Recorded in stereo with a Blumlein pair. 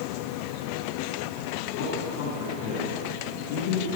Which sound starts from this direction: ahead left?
A man speaking, at 1.7 s.